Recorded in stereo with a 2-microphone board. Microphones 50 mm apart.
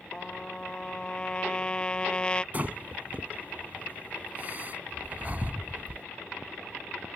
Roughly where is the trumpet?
Centre.